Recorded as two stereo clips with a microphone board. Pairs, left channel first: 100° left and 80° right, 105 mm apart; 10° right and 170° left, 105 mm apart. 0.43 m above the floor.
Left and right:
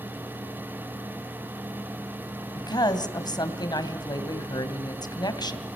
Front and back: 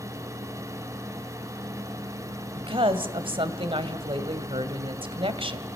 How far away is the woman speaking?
About 1.9 m.